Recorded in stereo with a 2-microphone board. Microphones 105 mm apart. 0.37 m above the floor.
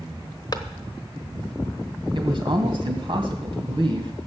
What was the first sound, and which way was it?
A clap, 40° left (ahead or behind).